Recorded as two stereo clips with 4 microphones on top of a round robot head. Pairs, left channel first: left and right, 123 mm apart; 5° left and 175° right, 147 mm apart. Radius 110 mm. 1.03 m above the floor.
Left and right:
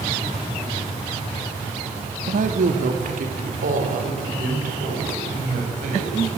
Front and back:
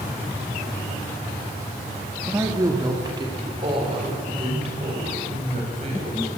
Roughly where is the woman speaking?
Right.